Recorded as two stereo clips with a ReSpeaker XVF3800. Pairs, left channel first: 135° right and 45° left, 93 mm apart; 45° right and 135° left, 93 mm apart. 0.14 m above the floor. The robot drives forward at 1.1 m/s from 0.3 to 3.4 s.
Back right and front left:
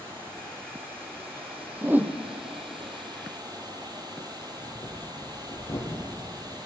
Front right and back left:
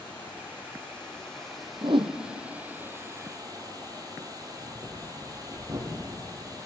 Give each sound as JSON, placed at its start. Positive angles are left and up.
{"t": 0.0, "sound": "running water", "azimuth_deg": 30, "distance_m": 4.0}
{"t": 1.8, "sound": "a whoosh", "azimuth_deg": 100, "distance_m": 0.7}
{"t": 4.4, "sound": "breathing", "azimuth_deg": 175, "distance_m": 2.5}